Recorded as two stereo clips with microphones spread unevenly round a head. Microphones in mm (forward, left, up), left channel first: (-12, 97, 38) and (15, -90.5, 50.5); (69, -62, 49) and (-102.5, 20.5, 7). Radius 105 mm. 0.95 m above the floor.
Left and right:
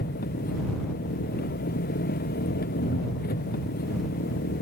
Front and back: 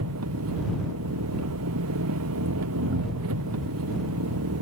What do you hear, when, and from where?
0.0 s an engine running: 145° left